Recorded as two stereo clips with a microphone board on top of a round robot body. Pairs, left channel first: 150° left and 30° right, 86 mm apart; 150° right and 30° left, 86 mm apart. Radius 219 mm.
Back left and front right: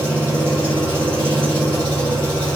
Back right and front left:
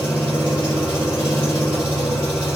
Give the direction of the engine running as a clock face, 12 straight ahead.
7 o'clock.